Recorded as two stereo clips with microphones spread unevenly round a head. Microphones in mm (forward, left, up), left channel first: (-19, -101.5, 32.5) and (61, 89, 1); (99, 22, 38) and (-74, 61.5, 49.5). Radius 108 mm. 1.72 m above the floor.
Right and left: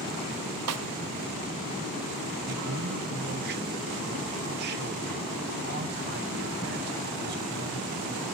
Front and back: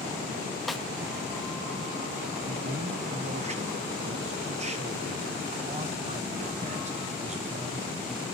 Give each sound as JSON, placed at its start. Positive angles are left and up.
{"t": 0.7, "sound": "a snare drum", "azimuth_deg": 80, "distance_m": 0.7}
{"t": 2.5, "sound": "a man speaking", "azimuth_deg": 115, "distance_m": 1.5}